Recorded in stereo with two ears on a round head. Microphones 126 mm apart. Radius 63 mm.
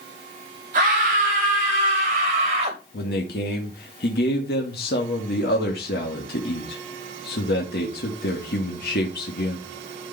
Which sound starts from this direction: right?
A scream, at 0.7 s.